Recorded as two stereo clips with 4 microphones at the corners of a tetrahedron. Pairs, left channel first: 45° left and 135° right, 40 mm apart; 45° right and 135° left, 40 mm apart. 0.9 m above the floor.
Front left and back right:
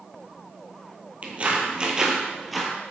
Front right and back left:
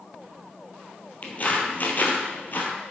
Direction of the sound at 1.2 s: 85° right.